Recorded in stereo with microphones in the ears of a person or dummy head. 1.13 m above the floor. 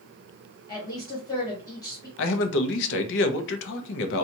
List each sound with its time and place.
0.7 s a woman speaking: 20° left (ahead or behind), 1.5 m
2.2 s a man speaking: 65° left (ahead or behind), 0.7 m